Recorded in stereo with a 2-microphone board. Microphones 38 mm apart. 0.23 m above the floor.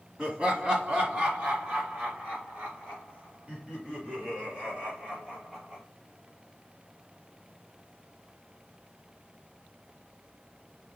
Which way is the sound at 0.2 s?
20° right (ahead or behind).